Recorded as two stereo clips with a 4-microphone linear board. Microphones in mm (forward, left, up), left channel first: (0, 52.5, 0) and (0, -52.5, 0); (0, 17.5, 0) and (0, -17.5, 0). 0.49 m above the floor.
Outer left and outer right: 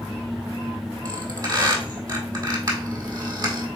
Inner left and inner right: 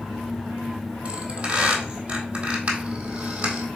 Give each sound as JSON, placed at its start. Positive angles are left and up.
{"t": 1.1, "sound": "a squeak", "side_deg": -35, "distance_m": 1.6}